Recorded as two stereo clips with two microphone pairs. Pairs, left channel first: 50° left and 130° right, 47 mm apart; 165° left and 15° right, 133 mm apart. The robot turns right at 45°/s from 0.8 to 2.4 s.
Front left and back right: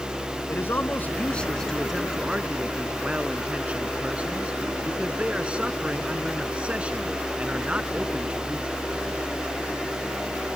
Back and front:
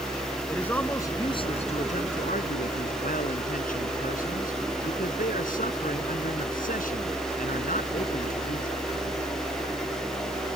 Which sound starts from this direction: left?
A man speaking, at 0.5 s.